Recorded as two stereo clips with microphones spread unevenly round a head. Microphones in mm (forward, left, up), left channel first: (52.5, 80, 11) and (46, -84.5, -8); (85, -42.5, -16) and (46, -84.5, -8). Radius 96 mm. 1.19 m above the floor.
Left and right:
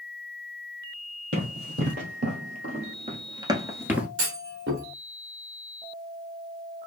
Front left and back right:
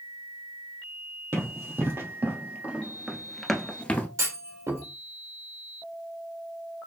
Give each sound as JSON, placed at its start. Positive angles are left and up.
{"t": 1.3, "sound": "running footsteps", "azimuth_deg": -140, "distance_m": 2.5}
{"t": 4.2, "sound": "a clunk", "azimuth_deg": -115, "distance_m": 2.0}